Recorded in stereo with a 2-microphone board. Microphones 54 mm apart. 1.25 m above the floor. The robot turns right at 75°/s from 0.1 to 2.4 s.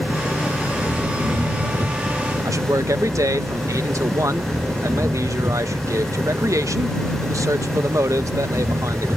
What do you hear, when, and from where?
0.0 s an engine running: 130° left; by 9.2 s 60° right
2.5 s a man speaking: 75° right (ahead or behind)